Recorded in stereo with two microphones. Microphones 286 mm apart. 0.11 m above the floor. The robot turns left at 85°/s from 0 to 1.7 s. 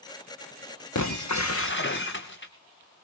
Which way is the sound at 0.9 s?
105° left.